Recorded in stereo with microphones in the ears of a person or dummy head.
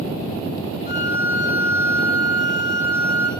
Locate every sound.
0.9 s a violin: 45° left (ahead or behind), 1.8 m